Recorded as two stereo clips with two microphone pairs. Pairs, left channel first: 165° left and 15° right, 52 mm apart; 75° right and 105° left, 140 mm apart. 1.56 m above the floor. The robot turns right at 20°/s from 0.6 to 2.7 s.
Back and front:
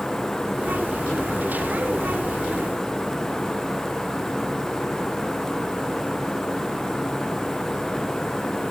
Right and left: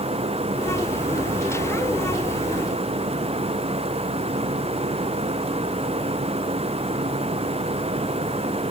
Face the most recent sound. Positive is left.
No sound to turn to.